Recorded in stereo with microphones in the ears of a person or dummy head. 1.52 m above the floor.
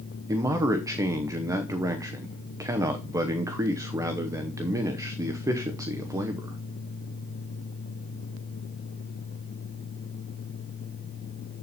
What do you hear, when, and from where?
0.3 s a man speaking: 20° right (ahead or behind), 0.8 m